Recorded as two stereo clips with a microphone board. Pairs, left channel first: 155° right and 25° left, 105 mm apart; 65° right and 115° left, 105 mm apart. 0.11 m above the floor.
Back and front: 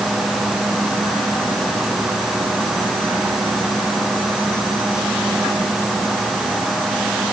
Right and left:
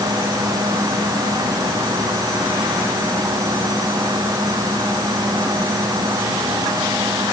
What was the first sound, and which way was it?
Only background noise.